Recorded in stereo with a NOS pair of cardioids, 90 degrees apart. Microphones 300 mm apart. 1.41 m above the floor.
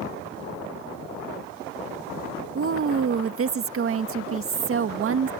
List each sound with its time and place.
2.5 s a woman speaking: 45° right